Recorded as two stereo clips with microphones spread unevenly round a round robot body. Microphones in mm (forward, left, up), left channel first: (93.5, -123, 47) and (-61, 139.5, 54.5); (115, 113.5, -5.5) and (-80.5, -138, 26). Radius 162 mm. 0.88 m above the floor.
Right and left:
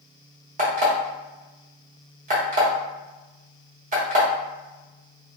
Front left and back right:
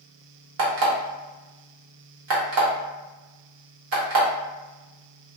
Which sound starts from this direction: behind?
An alarm clock, at 0.6 s.